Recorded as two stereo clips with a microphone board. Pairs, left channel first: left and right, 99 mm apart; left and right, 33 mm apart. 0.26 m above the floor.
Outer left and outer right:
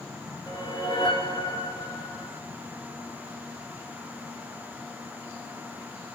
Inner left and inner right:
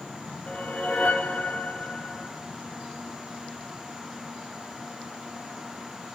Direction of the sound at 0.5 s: 45° left (ahead or behind).